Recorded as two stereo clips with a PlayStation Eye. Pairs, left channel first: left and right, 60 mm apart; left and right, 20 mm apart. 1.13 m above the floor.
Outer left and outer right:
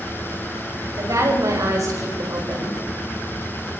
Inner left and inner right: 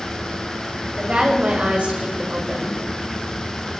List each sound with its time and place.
1.0 s a woman speaking: 70° right (ahead or behind), 6 m; by 2.8 s 85° right, 5 m